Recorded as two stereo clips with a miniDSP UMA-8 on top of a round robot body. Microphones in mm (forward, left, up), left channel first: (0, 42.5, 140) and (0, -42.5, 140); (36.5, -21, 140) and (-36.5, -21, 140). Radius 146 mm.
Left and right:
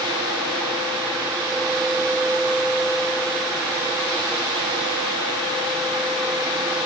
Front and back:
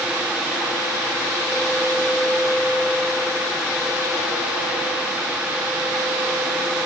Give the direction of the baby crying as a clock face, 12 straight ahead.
No baby crying in this recording.